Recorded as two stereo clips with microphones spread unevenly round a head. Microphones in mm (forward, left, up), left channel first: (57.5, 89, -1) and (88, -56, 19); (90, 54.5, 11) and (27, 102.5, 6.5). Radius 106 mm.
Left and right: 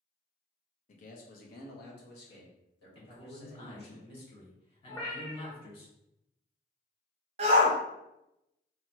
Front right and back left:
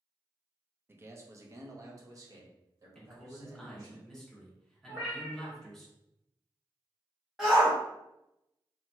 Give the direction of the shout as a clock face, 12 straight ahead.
4 o'clock.